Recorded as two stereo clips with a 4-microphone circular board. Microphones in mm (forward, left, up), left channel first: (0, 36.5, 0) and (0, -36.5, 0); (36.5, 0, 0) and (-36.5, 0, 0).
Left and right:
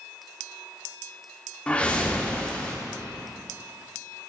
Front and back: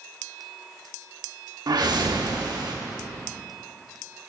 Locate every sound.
1.7 s a whoosh: 165° left, 0.8 m